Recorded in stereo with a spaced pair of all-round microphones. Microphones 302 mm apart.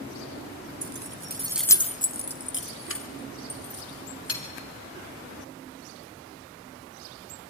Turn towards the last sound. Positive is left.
turn(degrees=50)  # may be behind; listen again after turning